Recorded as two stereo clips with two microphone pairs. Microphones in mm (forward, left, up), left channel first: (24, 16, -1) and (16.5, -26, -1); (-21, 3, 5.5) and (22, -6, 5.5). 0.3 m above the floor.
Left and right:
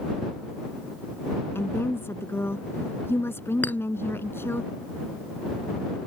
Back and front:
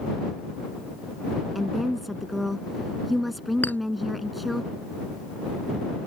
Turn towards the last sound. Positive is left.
turn(degrees=120)